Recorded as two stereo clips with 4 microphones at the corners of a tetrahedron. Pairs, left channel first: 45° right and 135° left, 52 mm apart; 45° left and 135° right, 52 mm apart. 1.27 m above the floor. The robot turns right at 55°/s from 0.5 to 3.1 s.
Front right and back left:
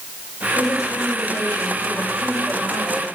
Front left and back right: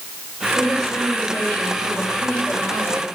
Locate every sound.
0.6 s a woman speaking: 50° right, 7 m; by 3.0 s 90° left, 7 m